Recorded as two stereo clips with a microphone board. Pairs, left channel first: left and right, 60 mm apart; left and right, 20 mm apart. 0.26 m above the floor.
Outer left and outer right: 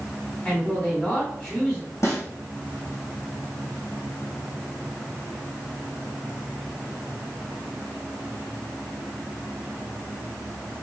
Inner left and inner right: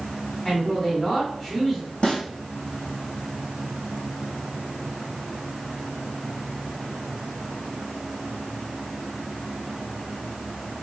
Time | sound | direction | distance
0.5 | a man speaking | 25° left (ahead or behind) | 1.5 m
2.0 | a snare drum | 55° left (ahead or behind) | 2.5 m